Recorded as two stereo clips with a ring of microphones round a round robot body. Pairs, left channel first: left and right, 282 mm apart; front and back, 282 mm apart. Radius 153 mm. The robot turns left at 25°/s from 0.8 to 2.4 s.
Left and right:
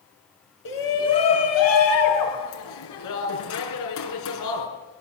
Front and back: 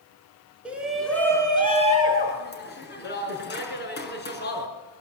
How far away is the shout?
About 6.5 m.